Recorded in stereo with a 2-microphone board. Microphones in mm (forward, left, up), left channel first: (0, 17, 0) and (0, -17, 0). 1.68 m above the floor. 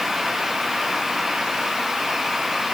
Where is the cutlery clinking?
I don't hear cutlery clinking.